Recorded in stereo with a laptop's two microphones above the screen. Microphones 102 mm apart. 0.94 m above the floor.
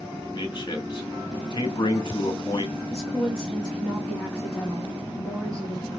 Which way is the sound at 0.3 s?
45° left (ahead or behind).